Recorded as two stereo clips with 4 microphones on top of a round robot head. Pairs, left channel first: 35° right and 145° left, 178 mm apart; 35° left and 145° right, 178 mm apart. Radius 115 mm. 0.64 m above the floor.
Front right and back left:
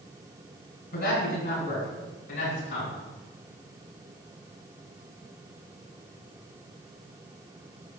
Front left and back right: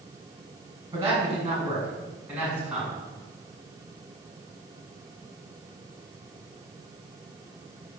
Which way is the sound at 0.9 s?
70° right.